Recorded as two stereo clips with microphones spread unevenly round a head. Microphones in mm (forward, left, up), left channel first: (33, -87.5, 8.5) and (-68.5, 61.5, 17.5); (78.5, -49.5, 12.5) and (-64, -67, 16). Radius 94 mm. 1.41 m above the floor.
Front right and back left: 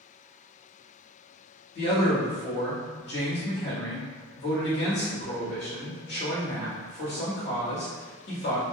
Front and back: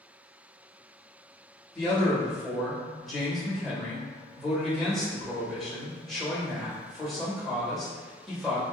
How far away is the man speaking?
About 1.5 m.